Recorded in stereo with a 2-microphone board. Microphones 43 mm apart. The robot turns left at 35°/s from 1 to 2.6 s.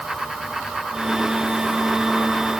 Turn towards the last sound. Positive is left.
No sound to turn to.